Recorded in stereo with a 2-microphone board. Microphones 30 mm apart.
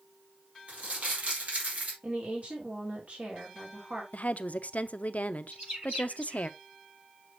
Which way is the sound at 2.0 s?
50° right (ahead or behind).